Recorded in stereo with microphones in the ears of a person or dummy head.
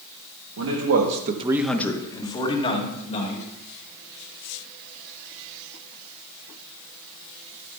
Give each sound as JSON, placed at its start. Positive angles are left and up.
{"t": 0.6, "sound": "a man speaking", "side_deg": -75, "distance_m": 1.3}